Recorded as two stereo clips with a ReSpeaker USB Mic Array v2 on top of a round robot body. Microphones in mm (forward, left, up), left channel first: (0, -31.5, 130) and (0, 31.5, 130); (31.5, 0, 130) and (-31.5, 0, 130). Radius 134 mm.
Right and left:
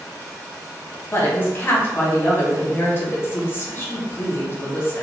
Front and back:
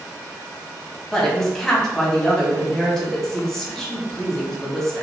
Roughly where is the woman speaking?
Right.